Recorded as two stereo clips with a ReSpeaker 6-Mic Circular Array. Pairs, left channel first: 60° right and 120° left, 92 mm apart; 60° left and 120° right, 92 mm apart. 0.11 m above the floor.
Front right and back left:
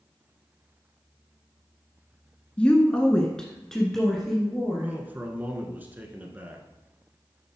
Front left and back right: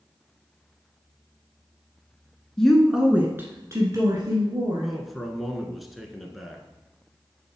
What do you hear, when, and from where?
2.6 s a woman speaking: 10° right, 1.2 m; by 4.9 s 150° right, 2 m
4.8 s a man speaking: 150° left, 1.1 m